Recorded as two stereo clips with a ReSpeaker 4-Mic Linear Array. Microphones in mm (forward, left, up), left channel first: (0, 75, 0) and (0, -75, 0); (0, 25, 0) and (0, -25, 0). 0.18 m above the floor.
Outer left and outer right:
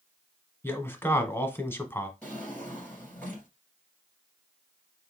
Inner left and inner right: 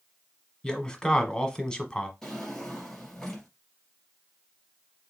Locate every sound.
0.6 s a man speaking: 15° left (ahead or behind), 1.1 m
2.2 s a drawer: 10° left (ahead or behind), 2 m